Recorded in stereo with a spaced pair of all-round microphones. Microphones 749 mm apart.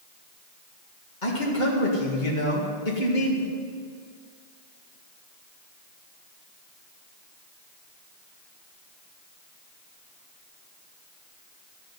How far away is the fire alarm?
I don't hear a fire alarm.